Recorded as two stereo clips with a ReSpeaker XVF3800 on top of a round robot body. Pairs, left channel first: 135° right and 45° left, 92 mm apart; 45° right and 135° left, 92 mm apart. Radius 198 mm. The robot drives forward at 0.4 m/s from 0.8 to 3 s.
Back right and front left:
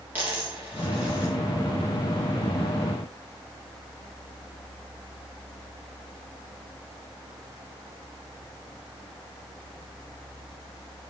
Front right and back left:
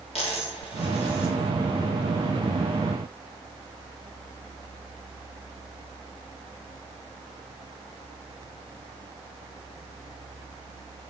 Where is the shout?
I don't hear a shout.